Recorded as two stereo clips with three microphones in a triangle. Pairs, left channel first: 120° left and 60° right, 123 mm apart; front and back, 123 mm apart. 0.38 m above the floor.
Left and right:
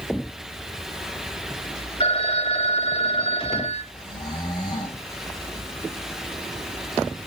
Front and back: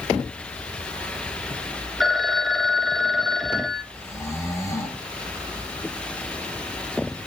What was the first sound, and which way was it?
A phone ringing, 85° left.